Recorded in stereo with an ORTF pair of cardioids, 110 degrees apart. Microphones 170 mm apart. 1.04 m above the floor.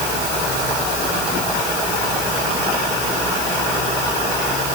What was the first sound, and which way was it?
Only background noise.